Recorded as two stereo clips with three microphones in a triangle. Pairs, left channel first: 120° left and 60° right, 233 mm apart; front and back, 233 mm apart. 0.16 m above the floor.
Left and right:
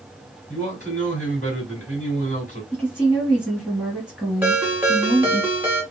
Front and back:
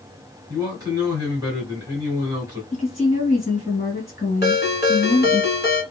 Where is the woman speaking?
35° left, 1.5 m.